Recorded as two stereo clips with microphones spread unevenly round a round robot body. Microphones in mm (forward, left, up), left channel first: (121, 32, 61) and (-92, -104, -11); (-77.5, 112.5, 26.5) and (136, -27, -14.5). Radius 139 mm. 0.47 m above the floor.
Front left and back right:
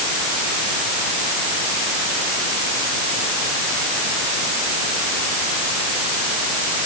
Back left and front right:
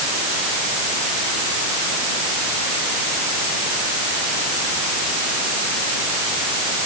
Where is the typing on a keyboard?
I don't hear typing on a keyboard.